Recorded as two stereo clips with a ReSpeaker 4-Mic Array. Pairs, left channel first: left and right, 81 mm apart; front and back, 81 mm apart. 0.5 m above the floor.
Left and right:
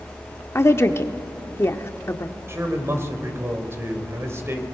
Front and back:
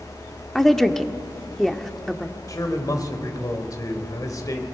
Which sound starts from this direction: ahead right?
A man speaking, at 2.5 s.